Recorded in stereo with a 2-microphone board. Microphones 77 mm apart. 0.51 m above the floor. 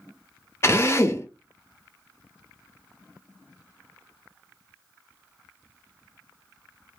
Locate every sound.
0.6 s a drill: 35° left (ahead or behind), 0.6 m